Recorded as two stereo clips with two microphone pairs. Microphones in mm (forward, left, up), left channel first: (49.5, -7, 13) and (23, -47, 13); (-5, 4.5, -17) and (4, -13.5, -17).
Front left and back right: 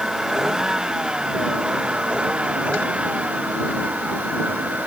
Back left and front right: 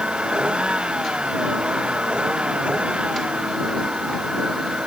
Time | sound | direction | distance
0.0 | a vehicle | 45° right | ?